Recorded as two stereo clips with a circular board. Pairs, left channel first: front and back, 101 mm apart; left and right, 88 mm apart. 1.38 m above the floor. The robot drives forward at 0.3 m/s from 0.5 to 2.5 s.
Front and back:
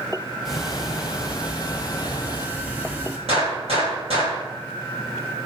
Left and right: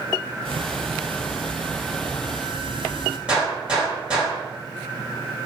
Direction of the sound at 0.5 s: 95° right.